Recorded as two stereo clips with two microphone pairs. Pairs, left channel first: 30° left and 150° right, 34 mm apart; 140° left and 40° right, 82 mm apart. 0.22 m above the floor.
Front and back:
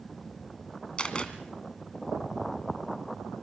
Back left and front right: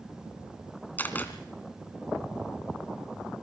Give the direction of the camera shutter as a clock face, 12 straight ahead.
9 o'clock.